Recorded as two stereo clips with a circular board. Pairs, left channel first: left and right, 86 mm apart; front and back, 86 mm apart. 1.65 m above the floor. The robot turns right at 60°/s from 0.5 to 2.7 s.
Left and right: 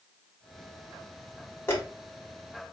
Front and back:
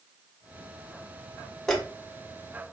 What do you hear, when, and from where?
1.7 s a dropped coin: 80° left, 1.3 m; by 1.8 s 85° left, 1.3 m